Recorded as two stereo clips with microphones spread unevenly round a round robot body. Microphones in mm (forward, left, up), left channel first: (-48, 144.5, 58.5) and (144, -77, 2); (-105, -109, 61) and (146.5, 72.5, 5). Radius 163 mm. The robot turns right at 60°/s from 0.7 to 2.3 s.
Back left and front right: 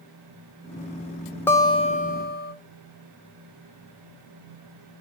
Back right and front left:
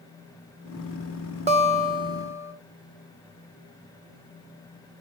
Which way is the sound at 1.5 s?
35° left.